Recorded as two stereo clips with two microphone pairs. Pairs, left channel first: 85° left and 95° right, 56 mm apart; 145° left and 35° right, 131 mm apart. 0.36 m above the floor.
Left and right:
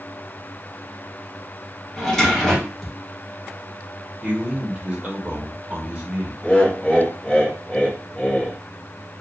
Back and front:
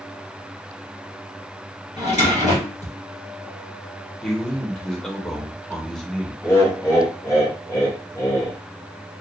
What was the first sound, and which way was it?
A drawer, 165° left.